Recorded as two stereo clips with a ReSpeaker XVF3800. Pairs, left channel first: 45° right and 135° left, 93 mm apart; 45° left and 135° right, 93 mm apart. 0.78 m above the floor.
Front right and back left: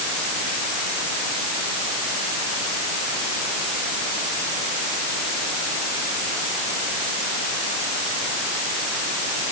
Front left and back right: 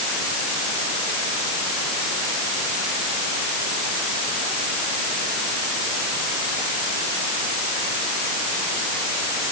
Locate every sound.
Only background noise.